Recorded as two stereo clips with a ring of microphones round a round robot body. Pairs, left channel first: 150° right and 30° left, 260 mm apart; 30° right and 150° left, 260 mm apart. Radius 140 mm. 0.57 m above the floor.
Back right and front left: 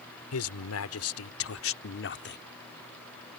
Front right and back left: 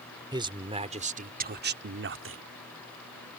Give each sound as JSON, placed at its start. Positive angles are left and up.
{"t": 0.3, "sound": "a man speaking", "azimuth_deg": -135}